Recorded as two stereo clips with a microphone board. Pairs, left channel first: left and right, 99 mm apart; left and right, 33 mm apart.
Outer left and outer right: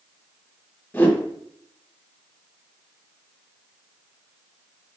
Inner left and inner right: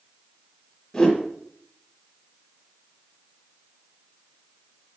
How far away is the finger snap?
No finger snap in this recording.